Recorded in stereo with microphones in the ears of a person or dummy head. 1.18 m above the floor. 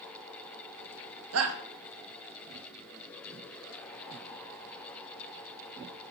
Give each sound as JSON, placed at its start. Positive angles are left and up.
{"t": 1.3, "sound": "a shout", "side_deg": -85, "distance_m": 1.0}